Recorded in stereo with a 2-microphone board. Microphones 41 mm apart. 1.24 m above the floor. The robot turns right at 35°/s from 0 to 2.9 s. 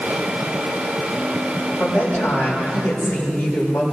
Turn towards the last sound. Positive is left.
turn(degrees=90)